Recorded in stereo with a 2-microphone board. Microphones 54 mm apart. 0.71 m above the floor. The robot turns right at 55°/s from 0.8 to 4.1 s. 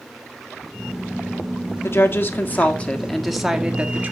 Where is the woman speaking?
100° left, 1.5 m; by 4.1 s 135° right, 1.5 m.